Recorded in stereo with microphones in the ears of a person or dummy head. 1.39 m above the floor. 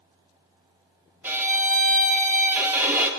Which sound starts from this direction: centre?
A violin, at 1.2 s.